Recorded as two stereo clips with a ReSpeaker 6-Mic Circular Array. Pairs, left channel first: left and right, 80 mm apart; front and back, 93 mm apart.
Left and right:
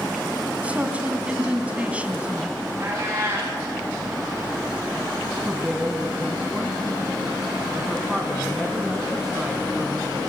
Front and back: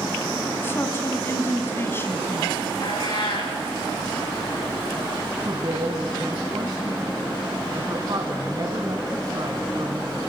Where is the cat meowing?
30° right, 8.5 m.